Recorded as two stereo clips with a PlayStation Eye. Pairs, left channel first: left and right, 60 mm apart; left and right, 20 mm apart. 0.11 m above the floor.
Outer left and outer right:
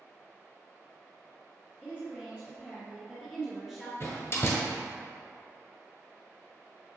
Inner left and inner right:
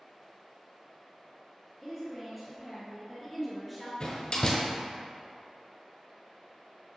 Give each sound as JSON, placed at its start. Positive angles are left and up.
{"t": 1.8, "sound": "a woman speaking", "side_deg": -25, "distance_m": 1.7}
{"t": 4.0, "sound": "a door slam", "side_deg": 45, "distance_m": 1.1}